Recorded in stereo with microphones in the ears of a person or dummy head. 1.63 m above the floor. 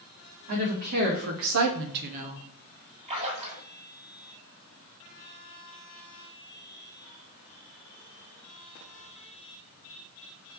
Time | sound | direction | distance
0.5 | a woman speaking | 40° right (ahead or behind) | 1.6 m
3.1 | a splash | 35° right (ahead or behind) | 2.0 m